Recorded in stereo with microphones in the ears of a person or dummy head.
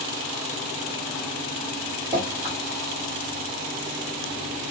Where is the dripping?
15° right (ahead or behind), 1.5 m.